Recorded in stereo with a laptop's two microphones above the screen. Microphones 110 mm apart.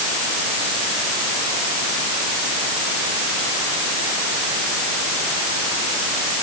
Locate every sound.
Only background noise.